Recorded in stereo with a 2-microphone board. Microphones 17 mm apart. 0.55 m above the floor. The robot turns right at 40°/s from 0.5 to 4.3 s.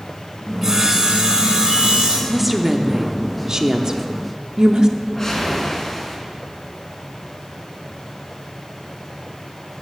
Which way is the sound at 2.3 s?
5° right (ahead or behind).